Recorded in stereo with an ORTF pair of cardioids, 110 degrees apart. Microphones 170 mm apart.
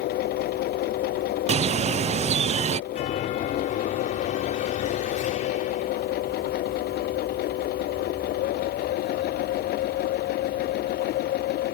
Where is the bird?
40° right.